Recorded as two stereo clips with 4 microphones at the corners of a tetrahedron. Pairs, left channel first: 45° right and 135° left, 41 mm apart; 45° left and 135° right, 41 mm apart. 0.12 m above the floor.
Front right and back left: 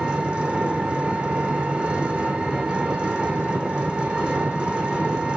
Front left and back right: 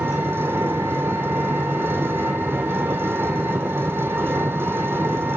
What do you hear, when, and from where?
0.0 s an engine running: 160° right, 1.4 m